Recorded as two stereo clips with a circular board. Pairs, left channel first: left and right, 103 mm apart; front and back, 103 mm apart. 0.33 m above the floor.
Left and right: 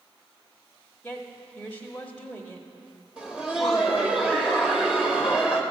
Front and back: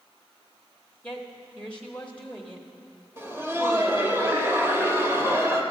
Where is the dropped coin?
No dropped coin in this recording.